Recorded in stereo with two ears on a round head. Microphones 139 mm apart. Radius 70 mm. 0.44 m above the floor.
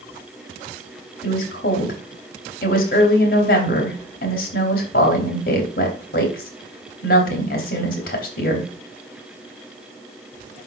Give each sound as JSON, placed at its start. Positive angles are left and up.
{"t": 1.2, "sound": "a woman speaking", "side_deg": 60, "distance_m": 3.0}